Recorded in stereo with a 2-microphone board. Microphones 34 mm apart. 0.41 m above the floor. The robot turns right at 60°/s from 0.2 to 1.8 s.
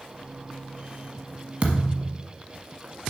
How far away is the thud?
About 1.2 m.